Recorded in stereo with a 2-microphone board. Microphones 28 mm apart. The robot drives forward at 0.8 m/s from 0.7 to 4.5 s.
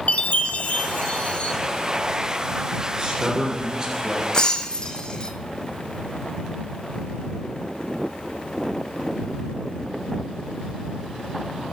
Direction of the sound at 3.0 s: 20° right (ahead or behind).